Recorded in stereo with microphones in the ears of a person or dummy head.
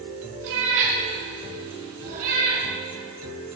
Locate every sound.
0.4 s a cat meowing: 75° right (ahead or behind), 4.5 m; by 2.6 s 50° right (ahead or behind), 5 m